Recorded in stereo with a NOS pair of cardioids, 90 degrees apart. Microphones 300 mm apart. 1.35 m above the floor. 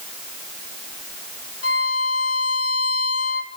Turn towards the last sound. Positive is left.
turn(degrees=50)